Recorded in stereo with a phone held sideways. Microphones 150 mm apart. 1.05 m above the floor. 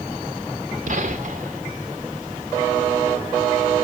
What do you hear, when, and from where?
0.9 s a gunshot: 65° right (ahead or behind), 2.5 m